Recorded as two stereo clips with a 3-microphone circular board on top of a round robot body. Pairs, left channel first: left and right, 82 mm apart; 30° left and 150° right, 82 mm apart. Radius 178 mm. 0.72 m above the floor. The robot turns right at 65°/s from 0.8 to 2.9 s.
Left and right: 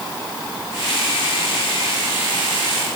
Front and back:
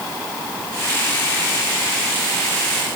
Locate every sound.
Only background noise.